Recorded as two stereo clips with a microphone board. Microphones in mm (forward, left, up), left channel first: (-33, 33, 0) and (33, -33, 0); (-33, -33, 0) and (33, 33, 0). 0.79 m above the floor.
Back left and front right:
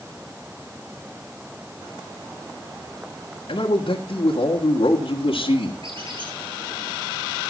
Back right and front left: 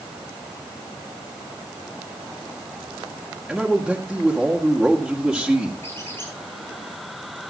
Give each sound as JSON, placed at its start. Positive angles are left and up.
{"t": 3.5, "sound": "a man speaking", "azimuth_deg": 130, "distance_m": 1.8}
{"t": 5.8, "sound": "a squeak", "azimuth_deg": -70, "distance_m": 6.5}